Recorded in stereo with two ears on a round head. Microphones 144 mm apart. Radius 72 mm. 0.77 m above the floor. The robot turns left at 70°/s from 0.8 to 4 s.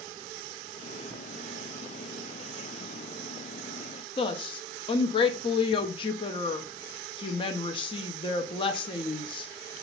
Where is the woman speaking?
35° left (ahead or behind), 0.6 m.